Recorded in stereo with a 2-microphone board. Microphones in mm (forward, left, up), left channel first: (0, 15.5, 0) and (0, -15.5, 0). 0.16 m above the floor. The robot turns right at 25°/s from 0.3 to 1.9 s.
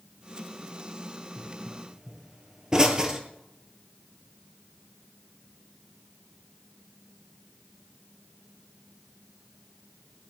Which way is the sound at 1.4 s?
10° right (ahead or behind).